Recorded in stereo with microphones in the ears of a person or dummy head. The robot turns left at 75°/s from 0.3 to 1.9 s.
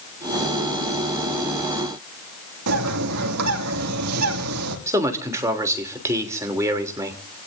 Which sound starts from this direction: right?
A bird, at 2.7 s.